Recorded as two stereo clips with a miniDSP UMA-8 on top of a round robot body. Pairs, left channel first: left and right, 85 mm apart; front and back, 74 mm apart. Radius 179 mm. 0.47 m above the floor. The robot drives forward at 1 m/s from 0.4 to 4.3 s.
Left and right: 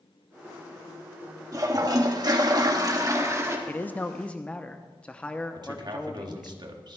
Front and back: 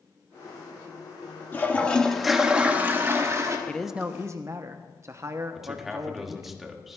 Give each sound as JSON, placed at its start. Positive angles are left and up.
{"t": 1.5, "sound": "a toilet flushing", "azimuth_deg": -55, "distance_m": 1.6}
{"t": 3.7, "sound": "a man speaking", "azimuth_deg": 45, "distance_m": 0.7}
{"t": 5.5, "sound": "a man speaking", "azimuth_deg": -95, "distance_m": 1.7}